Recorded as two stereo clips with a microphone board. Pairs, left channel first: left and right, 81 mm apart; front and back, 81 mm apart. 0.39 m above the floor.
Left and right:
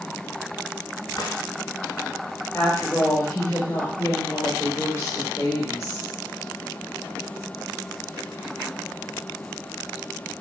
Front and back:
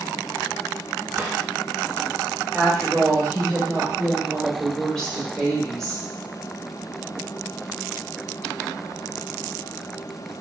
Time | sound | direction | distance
1.1 | a drawer | 115° left | 0.9 m
2.5 | a woman speaking | 80° left | 1.6 m